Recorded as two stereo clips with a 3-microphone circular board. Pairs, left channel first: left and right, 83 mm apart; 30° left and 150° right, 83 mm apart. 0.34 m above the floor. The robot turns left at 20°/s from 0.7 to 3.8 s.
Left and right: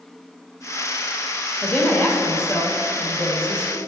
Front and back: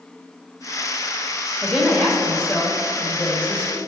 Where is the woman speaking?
120° left, 1.2 m; by 3.8 s 75° left, 1.2 m.